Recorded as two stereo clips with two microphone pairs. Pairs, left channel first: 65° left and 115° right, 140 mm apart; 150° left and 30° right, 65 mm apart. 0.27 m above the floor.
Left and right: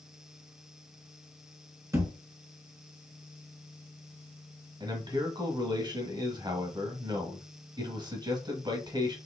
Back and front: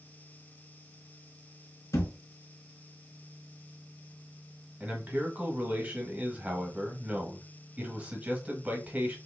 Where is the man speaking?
85° right, 1.5 m.